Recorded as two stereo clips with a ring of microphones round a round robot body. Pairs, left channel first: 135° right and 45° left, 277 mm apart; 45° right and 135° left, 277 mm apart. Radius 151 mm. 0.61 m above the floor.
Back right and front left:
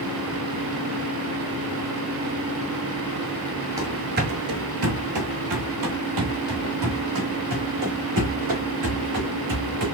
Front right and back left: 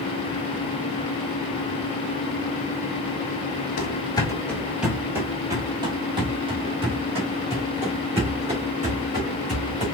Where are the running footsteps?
20° right, 0.6 m; by 9.8 s 70° left, 3.5 m.